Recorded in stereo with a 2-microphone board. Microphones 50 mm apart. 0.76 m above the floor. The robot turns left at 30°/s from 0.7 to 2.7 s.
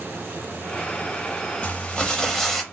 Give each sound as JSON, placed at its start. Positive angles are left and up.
{"t": 1.6, "sound": "crumpling", "side_deg": 25, "distance_m": 0.6}